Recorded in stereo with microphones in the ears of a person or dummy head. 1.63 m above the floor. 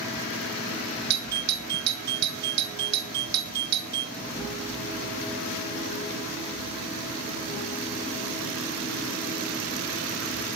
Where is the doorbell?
65° right (ahead or behind), 1.4 m.